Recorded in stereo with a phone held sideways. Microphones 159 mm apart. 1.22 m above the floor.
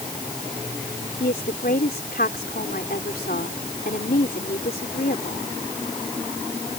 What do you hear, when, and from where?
1.2 s a woman speaking: 80° left